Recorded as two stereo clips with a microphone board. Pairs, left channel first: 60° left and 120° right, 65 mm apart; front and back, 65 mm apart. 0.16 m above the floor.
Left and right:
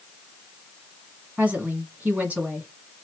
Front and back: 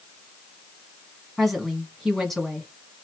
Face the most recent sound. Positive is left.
turn(degrees=-90)